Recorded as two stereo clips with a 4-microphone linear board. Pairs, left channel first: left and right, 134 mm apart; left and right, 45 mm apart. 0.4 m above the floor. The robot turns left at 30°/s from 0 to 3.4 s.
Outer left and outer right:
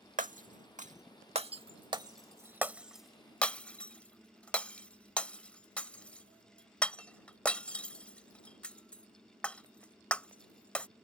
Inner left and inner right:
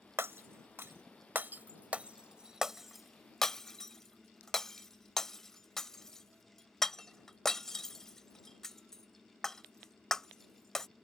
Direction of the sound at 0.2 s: 65° right (ahead or behind).